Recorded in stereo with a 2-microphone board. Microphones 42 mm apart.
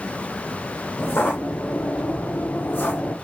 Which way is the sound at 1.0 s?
65° left (ahead or behind).